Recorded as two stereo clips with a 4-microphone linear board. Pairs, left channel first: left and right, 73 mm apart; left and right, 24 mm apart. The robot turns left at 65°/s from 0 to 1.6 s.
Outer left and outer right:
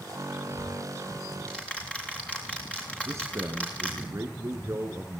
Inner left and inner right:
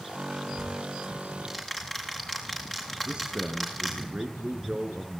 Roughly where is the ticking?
Right.